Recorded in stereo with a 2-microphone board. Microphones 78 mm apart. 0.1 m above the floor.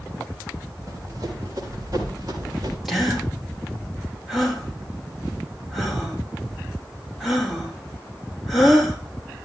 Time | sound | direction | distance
0.9 | running footsteps | 40° right (ahead or behind) | 8 m
2.9 | a gasp | 5° right (ahead or behind) | 3.5 m